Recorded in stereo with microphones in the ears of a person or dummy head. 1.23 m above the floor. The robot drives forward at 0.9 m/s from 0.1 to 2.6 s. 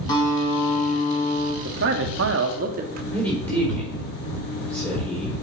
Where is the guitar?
25° left (ahead or behind), 2.5 m; by 1.6 s 40° left (ahead or behind), 1.7 m.